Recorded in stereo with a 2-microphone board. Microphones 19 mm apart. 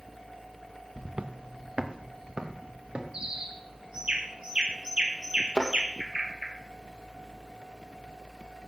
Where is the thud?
70° right (ahead or behind), 3 m.